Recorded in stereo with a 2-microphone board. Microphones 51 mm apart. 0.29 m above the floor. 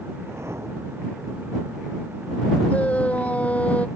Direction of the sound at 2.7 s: 30° left (ahead or behind).